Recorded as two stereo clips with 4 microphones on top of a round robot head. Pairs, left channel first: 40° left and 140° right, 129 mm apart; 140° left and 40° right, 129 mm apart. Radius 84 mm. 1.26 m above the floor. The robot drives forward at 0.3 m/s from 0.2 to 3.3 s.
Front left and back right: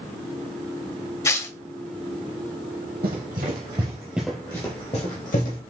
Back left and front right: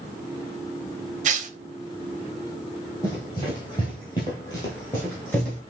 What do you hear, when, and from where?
1.2 s tearing paper: 30° right, 0.8 m
3.0 s running footsteps: 155° right, 1.9 m; by 5.6 s 60° left, 2 m